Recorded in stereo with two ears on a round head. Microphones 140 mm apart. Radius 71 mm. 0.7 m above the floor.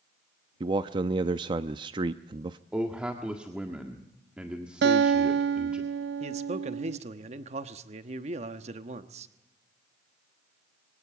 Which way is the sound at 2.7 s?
5° right (ahead or behind).